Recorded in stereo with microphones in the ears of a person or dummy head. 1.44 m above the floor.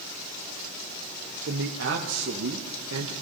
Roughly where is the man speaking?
Right.